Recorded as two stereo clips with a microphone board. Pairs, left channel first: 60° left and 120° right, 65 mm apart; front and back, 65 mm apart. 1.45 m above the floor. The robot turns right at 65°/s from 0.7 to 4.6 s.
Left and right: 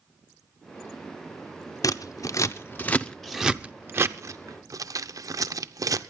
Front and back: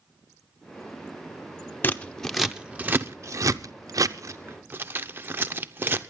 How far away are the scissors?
About 0.7 m.